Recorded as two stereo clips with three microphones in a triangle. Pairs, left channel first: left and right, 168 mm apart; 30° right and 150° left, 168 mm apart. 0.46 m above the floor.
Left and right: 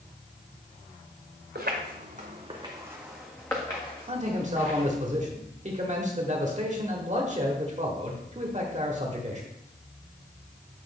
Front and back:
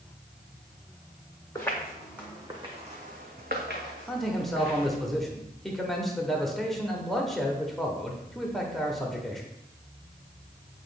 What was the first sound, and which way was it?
Footsteps, 105° right.